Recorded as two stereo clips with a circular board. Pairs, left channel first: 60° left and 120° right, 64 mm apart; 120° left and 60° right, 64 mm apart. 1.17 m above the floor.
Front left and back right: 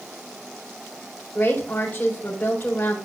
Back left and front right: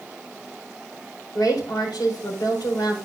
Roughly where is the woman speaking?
Behind left.